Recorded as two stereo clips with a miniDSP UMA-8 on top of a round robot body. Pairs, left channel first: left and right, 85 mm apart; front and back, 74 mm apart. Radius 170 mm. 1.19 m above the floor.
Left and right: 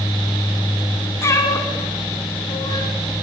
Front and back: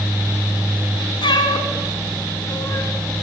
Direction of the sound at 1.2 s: 30° left.